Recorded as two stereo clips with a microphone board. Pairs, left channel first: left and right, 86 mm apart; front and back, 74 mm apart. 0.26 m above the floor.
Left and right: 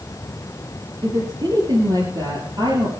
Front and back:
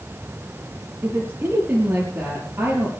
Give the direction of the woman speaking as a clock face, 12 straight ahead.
4 o'clock.